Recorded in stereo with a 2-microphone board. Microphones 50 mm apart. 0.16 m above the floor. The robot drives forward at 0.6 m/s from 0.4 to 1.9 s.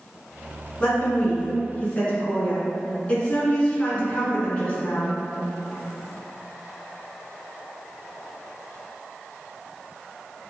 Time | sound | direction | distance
0.8 | a woman speaking | 30° left (ahead or behind) | 1.1 m